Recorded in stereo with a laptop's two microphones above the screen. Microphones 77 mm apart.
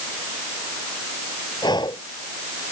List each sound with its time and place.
1.6 s breathing: 70° left (ahead or behind)